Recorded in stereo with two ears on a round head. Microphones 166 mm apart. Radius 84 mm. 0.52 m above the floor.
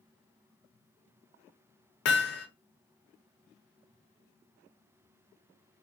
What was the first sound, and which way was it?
Hammering, 60° left (ahead or behind).